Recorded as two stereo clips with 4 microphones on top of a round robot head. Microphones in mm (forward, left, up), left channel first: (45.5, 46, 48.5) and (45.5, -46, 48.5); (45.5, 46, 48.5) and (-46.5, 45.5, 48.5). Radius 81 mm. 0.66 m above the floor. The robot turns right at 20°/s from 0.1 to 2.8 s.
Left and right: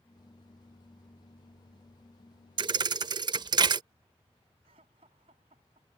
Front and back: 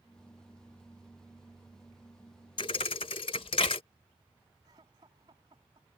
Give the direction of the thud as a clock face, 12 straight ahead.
2 o'clock.